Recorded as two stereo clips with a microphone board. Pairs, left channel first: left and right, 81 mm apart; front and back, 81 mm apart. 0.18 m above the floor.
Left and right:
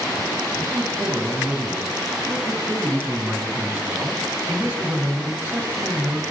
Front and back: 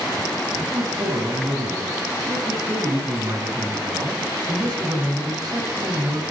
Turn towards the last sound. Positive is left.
turn(degrees=-160)